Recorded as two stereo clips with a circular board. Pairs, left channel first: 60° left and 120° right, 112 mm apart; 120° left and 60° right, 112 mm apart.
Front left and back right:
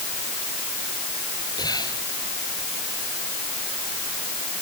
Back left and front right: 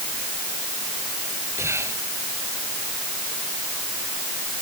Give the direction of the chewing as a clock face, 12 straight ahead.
I don't hear chewing.